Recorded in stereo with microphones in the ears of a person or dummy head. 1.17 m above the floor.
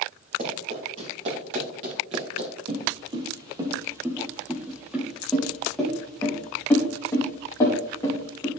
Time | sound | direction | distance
0.4 | running footsteps | 40° right (ahead or behind) | 4 m
2.7 | footsteps | 35° right (ahead or behind) | 2 m